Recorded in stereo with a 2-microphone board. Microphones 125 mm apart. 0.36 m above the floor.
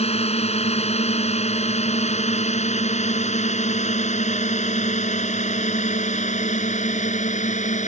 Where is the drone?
60° left (ahead or behind); by 7.9 s 75° left (ahead or behind).